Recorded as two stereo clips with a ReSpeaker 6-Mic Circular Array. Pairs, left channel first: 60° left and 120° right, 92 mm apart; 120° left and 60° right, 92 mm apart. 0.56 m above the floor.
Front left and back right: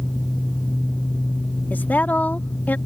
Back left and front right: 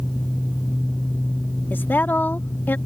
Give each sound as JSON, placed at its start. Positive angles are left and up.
{"t": 1.7, "sound": "a woman speaking", "azimuth_deg": 95}